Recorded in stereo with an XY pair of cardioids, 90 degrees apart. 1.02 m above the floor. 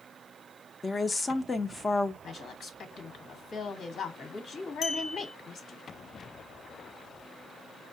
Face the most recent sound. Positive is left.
turn(degrees=65)